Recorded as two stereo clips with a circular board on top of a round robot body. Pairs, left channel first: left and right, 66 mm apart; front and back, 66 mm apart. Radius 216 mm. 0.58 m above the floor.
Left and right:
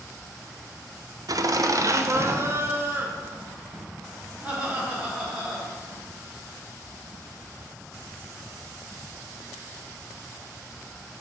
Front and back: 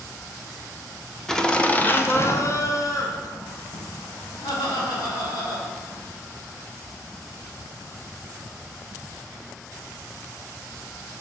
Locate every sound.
1.3 s laughter: 85° right, 1.0 m; by 6.0 s 10° right, 3 m